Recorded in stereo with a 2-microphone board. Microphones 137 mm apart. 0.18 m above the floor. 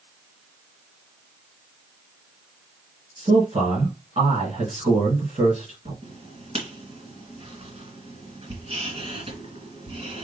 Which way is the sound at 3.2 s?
55° right (ahead or behind).